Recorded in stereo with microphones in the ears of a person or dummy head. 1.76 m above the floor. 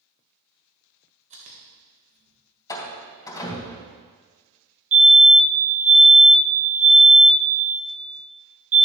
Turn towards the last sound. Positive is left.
turn(degrees=-75)  # may be behind; listen again after turning